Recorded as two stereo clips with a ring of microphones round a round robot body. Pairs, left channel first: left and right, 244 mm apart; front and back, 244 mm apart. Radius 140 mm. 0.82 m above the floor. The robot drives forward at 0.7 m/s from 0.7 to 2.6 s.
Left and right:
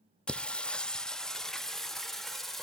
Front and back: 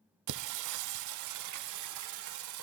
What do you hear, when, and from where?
0.3 s singing: 175° left, 0.6 m; by 2.6 s straight behind, 2.0 m